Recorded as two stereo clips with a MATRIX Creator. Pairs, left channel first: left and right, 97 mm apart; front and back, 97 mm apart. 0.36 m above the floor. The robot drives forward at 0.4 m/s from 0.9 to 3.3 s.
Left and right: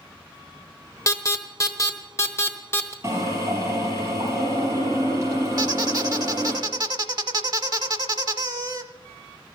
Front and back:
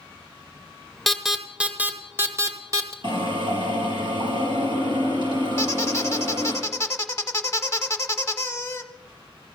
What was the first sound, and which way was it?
An alarm, 90° left.